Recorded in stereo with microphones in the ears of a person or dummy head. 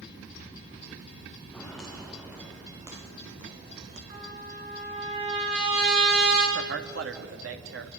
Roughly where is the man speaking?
Right.